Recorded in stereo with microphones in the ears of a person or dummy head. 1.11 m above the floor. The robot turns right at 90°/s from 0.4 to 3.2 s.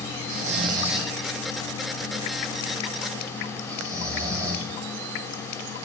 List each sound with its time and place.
0.3 s snoring: 55° right (ahead or behind), 3 m; by 4.7 s 20° right (ahead or behind), 3 m